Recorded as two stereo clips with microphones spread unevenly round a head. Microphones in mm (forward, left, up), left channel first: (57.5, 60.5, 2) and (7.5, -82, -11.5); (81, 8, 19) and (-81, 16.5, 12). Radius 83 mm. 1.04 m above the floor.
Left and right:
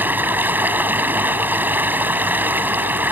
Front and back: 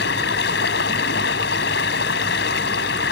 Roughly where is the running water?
Ahead right.